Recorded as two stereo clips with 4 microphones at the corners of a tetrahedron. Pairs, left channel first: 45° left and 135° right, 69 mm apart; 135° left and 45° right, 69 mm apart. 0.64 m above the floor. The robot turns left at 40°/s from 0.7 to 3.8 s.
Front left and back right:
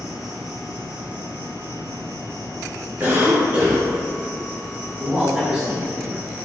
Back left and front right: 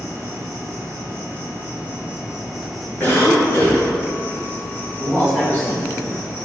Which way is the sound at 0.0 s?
60° right.